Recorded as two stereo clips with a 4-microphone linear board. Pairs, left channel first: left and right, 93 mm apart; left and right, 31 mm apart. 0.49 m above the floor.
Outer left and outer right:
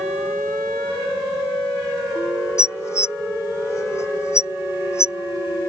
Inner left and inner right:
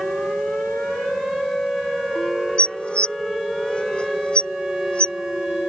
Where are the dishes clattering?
35° left (ahead or behind).